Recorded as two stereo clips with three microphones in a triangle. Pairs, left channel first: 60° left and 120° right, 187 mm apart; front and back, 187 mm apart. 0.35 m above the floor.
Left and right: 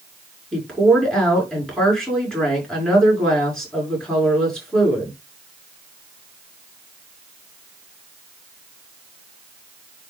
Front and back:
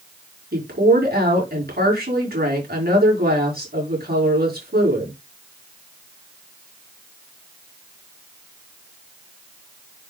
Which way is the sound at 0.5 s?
145° left.